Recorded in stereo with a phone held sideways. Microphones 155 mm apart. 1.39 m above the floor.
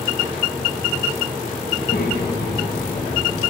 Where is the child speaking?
60° left (ahead or behind), 4.5 m; by 3.5 s 65° left (ahead or behind), 3 m.